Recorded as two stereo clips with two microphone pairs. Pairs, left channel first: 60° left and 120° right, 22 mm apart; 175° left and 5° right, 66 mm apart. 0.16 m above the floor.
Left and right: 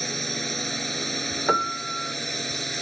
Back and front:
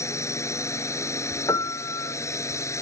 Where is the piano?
150° left.